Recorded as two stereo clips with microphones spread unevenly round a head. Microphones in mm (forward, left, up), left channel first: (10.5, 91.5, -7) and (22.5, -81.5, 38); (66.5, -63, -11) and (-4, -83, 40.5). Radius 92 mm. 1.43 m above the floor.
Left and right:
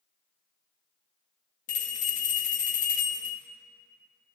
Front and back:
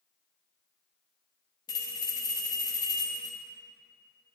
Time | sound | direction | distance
1.7 | a bell | 100° left | 0.8 m